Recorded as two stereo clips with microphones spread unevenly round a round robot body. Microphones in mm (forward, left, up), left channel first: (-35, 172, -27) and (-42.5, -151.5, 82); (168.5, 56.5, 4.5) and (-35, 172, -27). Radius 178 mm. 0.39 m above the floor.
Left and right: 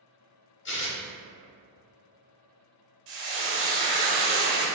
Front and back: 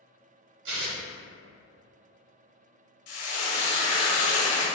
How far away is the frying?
About 0.9 m.